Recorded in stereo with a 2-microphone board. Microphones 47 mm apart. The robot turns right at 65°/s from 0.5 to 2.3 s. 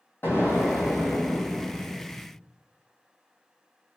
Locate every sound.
0.2 s an explosion: 55° left, 1.1 m; by 2.3 s 170° left, 1.1 m